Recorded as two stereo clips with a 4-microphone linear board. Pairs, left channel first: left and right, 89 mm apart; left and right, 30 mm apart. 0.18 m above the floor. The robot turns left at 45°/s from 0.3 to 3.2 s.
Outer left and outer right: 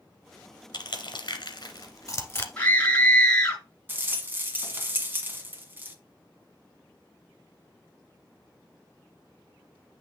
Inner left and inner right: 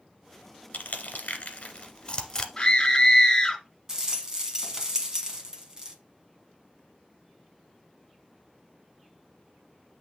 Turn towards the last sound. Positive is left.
turn(degrees=-25)  # may be behind; listen again after turning